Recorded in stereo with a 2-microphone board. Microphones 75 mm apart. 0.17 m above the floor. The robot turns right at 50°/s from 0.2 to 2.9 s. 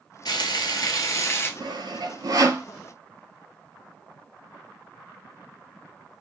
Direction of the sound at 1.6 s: 85° right.